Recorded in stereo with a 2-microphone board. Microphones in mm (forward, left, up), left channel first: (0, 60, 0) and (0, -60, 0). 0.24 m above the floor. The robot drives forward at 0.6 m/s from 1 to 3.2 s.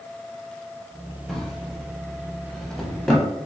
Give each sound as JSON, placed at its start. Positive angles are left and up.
{"t": 1.3, "sound": "a drawer", "side_deg": 5, "distance_m": 0.8}